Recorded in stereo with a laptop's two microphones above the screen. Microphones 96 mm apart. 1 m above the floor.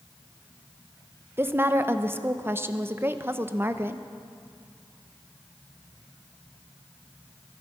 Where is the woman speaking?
25° right (ahead or behind), 0.7 m.